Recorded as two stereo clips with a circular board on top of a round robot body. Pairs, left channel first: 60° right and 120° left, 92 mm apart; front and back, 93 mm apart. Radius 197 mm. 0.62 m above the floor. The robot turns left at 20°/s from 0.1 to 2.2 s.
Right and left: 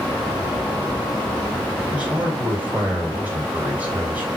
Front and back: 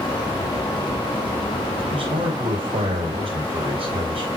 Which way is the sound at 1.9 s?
160° right.